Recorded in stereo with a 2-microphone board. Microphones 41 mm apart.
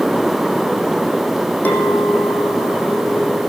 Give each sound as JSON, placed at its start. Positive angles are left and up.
{"t": 1.6, "sound": "a clink", "side_deg": 45, "distance_m": 4.0}